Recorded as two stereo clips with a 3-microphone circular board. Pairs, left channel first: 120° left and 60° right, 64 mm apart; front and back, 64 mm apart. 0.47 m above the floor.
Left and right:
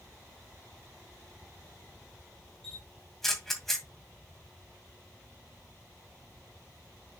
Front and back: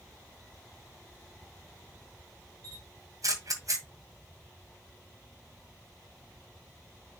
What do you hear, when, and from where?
2.6 s a camera shutter: 155° right, 1.9 m